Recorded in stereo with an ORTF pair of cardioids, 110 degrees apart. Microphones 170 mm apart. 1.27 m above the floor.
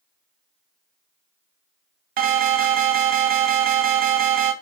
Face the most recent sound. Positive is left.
turn(degrees=-55)